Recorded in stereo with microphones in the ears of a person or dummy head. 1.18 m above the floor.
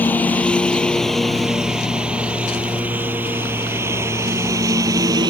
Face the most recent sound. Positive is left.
turn(degrees=-20)  # may be behind; listen again after turning